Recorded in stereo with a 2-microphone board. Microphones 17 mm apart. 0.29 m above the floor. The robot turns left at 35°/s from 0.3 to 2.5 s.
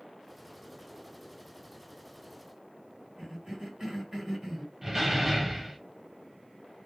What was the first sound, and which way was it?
A cough, 30° right (ahead or behind).